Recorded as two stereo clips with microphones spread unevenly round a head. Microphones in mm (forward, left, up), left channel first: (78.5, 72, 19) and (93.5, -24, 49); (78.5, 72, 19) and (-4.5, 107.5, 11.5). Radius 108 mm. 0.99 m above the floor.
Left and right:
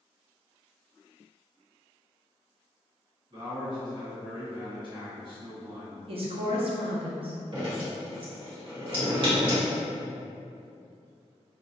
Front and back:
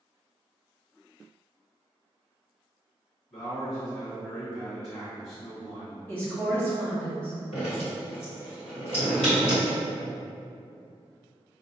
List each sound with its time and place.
3.3 s a man speaking: 40° right, 1.8 m
6.1 s a woman speaking: 100° right, 0.5 m
7.5 s dripping: 50° right, 1.8 m